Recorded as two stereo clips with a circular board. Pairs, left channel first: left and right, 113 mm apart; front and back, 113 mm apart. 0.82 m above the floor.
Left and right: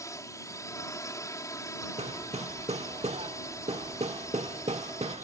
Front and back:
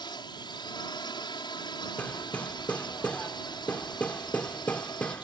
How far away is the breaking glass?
No breaking glass in this recording.